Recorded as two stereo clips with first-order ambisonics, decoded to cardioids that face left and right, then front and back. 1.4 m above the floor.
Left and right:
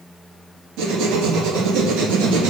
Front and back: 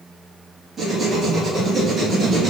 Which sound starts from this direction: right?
Writing, at 0.8 s.